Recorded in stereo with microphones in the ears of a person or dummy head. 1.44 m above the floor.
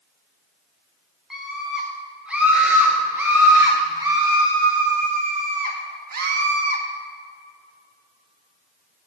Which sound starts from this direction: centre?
A scream, at 1.3 s.